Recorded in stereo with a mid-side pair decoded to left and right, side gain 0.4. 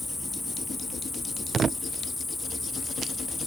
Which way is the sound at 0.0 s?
20° left.